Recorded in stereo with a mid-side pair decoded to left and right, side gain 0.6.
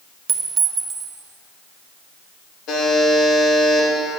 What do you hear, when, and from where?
0.3 s a clink: 40° right, 0.9 m
2.7 s a buzzer: 60° left, 2.5 m